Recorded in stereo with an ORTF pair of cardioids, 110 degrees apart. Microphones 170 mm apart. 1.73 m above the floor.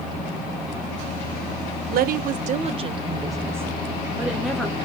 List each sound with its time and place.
1.9 s a woman speaking: 65° right, 1.0 m; by 4.8 s straight ahead, 2 m